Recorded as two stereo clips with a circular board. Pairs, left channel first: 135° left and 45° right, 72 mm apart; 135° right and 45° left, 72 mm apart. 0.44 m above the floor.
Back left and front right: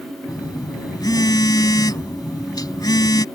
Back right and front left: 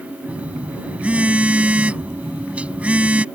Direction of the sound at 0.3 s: 115° left.